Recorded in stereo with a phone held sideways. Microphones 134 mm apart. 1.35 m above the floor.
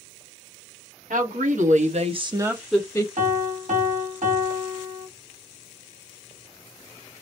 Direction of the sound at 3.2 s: 70° right (ahead or behind).